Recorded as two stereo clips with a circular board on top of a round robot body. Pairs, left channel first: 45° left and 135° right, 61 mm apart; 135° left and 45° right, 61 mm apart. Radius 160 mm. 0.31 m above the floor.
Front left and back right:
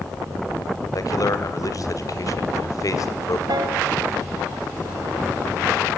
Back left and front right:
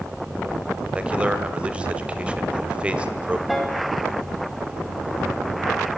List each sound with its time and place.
0.9 s a man speaking: 25° left, 2.5 m
3.5 s a piano: 135° right, 3 m